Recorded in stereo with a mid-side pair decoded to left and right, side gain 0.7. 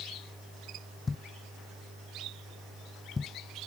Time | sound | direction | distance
1.1 | a thud | 20° left | ?